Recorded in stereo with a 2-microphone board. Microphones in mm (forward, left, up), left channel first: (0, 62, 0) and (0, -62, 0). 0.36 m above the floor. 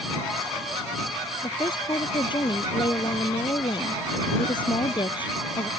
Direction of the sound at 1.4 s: 40° left (ahead or behind).